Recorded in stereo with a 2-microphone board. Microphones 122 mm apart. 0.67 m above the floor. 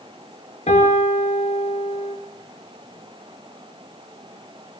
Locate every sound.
0.7 s a piano: 65° left (ahead or behind), 7.5 m